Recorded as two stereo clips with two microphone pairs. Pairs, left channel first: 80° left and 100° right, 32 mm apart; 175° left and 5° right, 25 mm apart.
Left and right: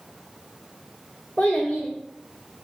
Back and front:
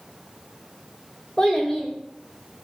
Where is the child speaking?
130° left, 0.7 m.